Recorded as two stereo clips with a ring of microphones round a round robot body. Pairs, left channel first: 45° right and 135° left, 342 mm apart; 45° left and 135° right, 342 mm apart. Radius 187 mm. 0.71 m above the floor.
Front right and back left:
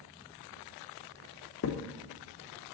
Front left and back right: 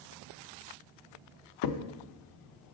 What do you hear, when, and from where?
1.6 s a crack: 10° left, 0.7 m